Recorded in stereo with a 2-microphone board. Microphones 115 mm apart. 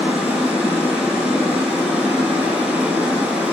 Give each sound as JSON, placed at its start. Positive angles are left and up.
{"t": 0.0, "sound": "running water", "side_deg": -10, "distance_m": 0.7}